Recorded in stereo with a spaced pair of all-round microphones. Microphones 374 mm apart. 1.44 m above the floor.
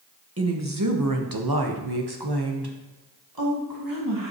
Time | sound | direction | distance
0.4 | a woman speaking | 40° right (ahead or behind) | 1.4 m